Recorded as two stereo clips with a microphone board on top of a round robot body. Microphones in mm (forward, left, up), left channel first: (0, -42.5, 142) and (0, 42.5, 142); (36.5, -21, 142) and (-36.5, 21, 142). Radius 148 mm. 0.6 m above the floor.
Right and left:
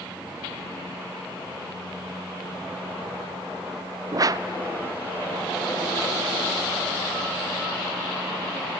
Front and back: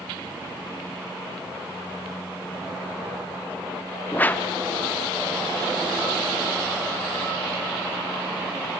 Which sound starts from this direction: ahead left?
A whoosh, at 4.1 s.